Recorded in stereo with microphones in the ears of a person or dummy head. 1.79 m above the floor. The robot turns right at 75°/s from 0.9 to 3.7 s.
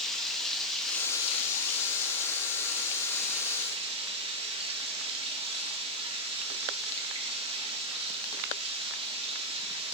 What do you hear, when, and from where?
0.0 s running water: straight ahead, 2 m; by 9.9 s 150° right, 2 m